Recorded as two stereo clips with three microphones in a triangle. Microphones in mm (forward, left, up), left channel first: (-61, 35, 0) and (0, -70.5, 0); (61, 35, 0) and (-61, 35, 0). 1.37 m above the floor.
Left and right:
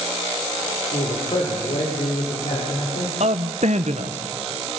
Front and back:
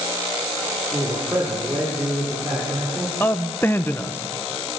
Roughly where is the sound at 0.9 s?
Behind left.